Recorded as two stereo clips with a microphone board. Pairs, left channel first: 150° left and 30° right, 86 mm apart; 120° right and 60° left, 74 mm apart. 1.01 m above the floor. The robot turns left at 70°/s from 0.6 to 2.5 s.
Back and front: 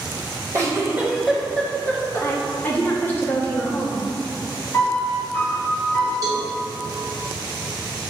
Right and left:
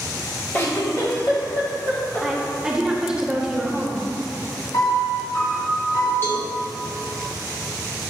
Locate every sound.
0.5 s a giggle: 65° right, 1.0 m; by 2.3 s 175° left, 1.0 m
2.2 s a woman speaking: 140° left, 0.7 m; by 4.1 s 120° left, 0.7 m
4.7 s a piano: 145° right, 1.8 m
6.2 s a cowbell: 65° right, 0.8 m